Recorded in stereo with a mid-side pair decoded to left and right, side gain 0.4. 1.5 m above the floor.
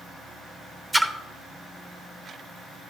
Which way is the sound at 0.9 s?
20° right.